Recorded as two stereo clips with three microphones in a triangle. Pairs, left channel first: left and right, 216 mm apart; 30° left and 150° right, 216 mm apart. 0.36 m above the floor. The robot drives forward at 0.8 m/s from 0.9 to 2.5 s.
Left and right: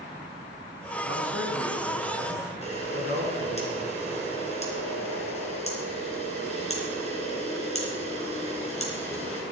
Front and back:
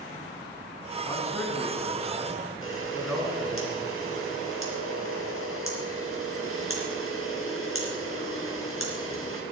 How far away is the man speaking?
About 3.5 m.